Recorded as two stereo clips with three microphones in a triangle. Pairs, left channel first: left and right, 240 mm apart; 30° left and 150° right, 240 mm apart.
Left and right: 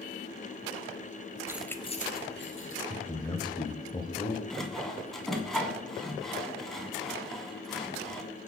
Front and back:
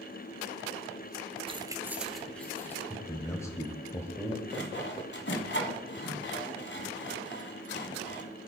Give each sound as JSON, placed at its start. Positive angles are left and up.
{"t": 1.5, "sound": "keys jangling", "azimuth_deg": -150, "distance_m": 0.9}
{"t": 2.9, "sound": "a man speaking", "azimuth_deg": 80, "distance_m": 1.2}
{"t": 4.5, "sound": "sawing", "azimuth_deg": 0, "distance_m": 1.7}